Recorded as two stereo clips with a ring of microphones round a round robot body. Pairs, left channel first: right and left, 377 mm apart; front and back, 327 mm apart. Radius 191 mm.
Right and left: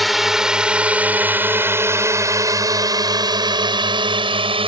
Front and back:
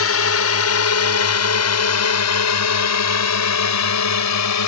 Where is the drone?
Straight ahead; by 4.7 s 15° left.